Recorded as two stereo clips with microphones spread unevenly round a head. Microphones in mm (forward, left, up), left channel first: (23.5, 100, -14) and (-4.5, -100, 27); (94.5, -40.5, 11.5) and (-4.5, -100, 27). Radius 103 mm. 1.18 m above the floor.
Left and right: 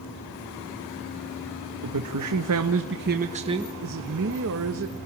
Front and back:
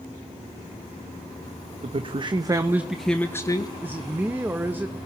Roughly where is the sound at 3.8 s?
Right.